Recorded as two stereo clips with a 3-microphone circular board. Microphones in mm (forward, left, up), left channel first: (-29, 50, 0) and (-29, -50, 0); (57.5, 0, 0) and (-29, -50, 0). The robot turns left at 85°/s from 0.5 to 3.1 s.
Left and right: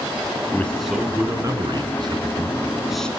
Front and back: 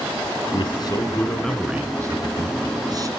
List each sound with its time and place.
0.5 s a man speaking: 25° left, 1.6 m; by 3.1 s 170° left, 1.6 m